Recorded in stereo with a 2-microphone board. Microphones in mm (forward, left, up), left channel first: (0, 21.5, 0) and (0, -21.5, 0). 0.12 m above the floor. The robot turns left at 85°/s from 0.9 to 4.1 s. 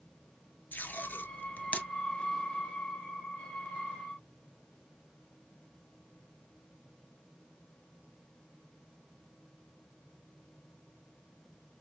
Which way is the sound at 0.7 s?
50° left (ahead or behind).